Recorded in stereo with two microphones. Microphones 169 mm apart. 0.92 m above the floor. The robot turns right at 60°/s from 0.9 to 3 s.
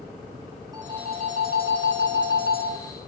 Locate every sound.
0.7 s a phone ringing: 160° right, 5 m; by 2.7 s 50° right, 5 m